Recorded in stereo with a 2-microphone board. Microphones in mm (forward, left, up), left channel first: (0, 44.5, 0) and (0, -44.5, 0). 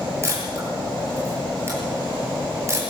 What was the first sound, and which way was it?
A camera shutter, 30° right (ahead or behind).